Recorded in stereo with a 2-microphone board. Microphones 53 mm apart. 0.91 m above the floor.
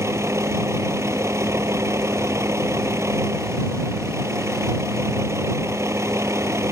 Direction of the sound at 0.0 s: 60° right (ahead or behind).